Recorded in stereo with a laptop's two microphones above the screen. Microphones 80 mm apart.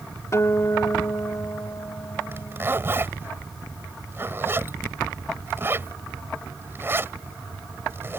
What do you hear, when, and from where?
0.3 s a guitar: 40° left (ahead or behind)
2.3 s a zipper: 30° right (ahead or behind)